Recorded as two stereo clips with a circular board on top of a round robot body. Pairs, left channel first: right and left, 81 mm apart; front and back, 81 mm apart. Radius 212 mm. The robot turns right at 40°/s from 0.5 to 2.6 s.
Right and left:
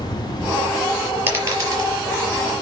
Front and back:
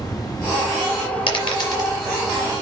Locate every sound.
0.0 s an insect: 50° right, 1.6 m; by 2.6 s 35° left, 1.6 m
1.3 s a dropped coin: 25° left, 4.5 m; by 2.0 s 50° left, 4.5 m